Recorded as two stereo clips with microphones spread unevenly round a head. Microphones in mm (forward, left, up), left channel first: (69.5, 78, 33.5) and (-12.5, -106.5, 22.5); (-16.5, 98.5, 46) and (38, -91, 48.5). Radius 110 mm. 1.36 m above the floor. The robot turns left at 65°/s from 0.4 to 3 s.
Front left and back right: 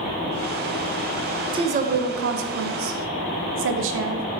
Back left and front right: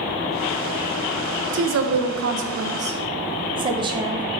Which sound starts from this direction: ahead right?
A woman speaking, at 1.5 s.